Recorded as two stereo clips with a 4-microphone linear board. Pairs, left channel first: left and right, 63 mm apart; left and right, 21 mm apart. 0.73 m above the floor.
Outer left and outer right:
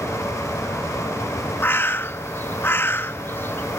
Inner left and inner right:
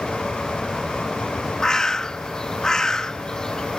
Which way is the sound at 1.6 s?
35° left (ahead or behind).